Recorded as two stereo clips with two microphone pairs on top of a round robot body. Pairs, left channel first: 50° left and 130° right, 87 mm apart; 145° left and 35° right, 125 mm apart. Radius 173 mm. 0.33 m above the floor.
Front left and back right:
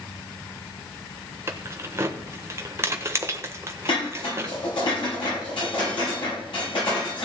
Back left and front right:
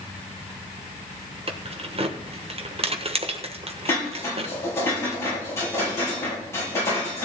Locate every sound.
1.5 s keys jangling: 75° right, 1.3 m
3.9 s dishes clattering: 75° left, 8 m